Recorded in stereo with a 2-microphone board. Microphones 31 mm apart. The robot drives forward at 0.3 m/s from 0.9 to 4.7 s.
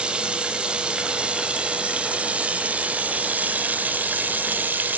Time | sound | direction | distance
0.0 | running water | 35° right (ahead or behind) | 1.5 m